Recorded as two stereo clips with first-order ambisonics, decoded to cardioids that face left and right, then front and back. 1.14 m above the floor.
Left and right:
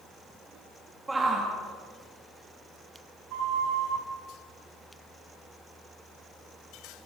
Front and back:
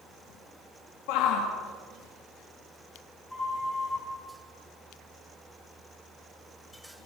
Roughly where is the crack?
I don't hear a crack.